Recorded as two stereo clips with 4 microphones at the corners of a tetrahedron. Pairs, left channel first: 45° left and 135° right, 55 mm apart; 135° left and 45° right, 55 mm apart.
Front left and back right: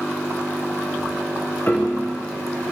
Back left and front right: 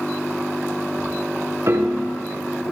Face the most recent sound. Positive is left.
turn(degrees=-5)